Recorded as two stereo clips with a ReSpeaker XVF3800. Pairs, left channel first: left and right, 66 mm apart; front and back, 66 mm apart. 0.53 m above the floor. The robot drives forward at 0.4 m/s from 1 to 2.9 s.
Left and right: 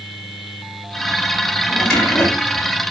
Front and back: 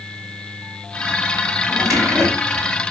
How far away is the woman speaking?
No woman speaking in this recording.